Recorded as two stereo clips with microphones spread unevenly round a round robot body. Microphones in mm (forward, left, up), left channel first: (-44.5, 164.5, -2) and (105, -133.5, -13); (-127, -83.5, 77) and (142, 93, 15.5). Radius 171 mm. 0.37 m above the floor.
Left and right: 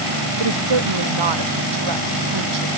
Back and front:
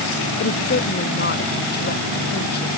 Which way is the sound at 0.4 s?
85° right.